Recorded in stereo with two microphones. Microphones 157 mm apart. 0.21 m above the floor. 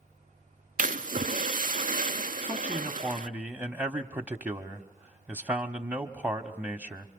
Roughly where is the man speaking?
Centre.